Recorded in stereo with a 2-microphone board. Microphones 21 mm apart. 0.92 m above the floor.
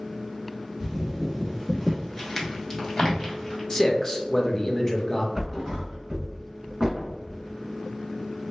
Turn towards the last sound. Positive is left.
turn(degrees=-30)  # may be behind; listen again after turning